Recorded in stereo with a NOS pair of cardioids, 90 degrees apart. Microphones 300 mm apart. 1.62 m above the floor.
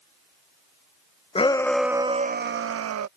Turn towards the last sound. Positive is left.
turn(degrees=-60)